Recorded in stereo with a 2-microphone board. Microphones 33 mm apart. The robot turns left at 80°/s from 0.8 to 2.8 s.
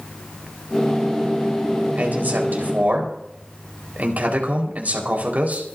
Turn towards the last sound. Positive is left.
turn(degrees=-120)